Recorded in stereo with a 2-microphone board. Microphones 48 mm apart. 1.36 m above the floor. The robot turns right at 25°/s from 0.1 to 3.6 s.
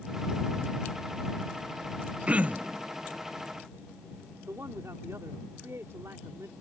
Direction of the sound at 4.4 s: 85° right.